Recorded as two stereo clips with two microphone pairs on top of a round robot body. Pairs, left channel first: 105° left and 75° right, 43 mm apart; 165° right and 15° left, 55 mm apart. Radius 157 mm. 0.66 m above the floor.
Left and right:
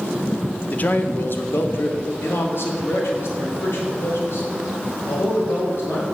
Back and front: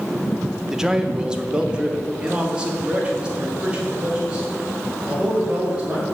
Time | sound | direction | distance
0.7 | a man speaking | 80° left | 0.8 m